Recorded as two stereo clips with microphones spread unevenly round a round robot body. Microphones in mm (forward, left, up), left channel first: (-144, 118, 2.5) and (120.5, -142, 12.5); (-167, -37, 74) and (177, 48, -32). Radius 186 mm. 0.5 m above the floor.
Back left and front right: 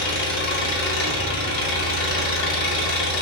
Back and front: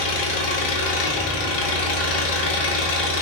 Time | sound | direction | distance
0.0 | an engine running | straight behind | 0.9 m